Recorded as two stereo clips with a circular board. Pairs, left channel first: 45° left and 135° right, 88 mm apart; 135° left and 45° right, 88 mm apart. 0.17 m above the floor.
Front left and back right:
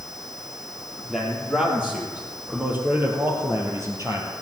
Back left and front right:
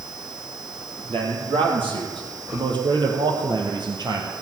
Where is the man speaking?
50° right, 4.5 m; by 4.4 s 90° right, 3.5 m.